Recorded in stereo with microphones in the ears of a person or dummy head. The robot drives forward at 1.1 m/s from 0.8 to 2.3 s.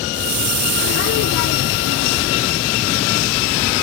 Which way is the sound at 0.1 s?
60° right (ahead or behind).